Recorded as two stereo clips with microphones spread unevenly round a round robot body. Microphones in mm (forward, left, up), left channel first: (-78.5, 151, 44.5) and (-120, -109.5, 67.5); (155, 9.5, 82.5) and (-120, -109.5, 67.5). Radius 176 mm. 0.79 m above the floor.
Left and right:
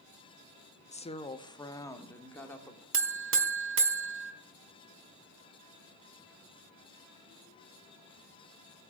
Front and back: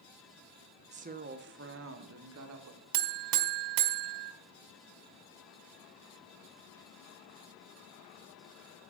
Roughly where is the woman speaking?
Behind left.